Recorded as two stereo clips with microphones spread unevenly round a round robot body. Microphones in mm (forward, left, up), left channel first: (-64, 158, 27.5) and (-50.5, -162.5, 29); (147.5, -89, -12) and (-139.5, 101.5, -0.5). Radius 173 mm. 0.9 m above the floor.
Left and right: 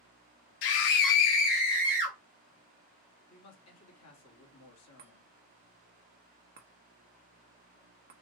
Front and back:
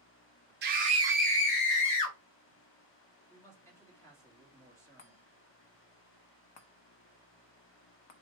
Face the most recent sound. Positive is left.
turn(degrees=-25)